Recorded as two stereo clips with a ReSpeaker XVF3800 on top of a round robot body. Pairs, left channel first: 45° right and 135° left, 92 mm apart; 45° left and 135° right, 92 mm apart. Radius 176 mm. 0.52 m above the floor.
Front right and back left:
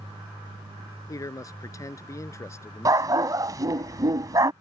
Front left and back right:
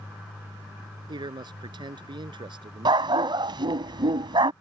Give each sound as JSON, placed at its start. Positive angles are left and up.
{"t": 1.1, "sound": "a man speaking", "azimuth_deg": -100}
{"t": 2.9, "sound": "a dog barking", "azimuth_deg": -175}